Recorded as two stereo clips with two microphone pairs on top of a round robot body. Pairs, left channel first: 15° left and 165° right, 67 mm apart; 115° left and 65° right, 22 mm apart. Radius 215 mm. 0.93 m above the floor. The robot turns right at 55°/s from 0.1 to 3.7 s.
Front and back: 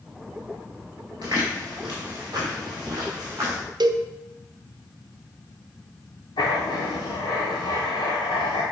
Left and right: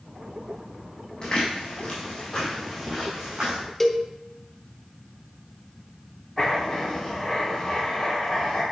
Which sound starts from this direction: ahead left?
Writing, at 6.4 s.